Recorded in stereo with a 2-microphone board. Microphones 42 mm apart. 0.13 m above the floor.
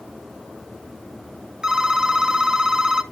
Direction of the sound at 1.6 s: 15° right (ahead or behind).